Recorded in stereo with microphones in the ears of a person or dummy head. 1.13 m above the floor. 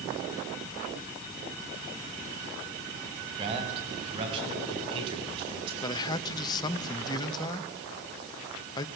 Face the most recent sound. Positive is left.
turn(degrees=25)  # may be behind; listen again after turning